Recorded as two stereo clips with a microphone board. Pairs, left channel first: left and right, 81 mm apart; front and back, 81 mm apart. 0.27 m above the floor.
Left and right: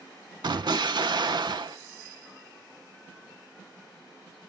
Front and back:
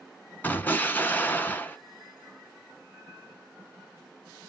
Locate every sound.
0.4 s an explosion: 70° right, 0.5 m